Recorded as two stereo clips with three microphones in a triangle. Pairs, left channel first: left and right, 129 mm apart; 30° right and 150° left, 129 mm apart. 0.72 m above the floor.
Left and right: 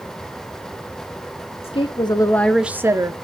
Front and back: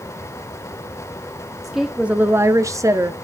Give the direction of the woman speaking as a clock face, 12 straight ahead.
10 o'clock.